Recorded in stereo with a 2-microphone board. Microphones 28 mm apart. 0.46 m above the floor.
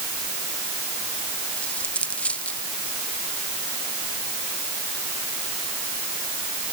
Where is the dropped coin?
55° left (ahead or behind).